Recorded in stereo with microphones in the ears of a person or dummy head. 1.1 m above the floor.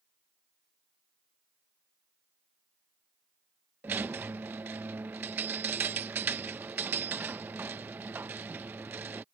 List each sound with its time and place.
3.8 s a squeak: 10° right (ahead or behind)